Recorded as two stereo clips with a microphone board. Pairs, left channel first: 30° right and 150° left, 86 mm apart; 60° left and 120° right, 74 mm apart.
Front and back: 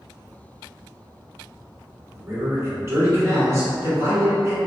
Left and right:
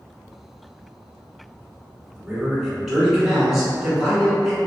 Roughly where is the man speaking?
Behind left.